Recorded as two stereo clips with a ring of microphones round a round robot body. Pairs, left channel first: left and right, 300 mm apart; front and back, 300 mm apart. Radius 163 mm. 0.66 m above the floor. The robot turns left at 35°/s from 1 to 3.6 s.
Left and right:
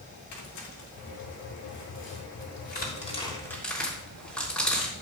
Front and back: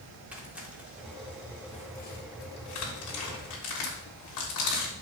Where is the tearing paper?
95° left, 3.5 m; by 4.9 s 5° left, 3.5 m.